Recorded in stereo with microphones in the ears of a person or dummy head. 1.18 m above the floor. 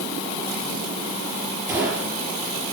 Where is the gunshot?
15° right (ahead or behind), 6.5 m.